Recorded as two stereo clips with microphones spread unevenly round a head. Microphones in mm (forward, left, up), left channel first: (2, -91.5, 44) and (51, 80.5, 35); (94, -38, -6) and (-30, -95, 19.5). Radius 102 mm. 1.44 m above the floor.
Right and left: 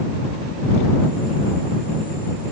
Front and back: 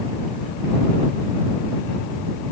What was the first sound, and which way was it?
Only background noise.